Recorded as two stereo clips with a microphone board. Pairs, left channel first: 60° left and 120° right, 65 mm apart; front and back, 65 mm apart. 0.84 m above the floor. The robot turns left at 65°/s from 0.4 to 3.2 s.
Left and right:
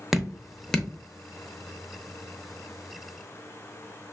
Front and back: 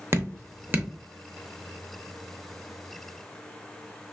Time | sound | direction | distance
0.1 | dripping | 155° left | 0.6 m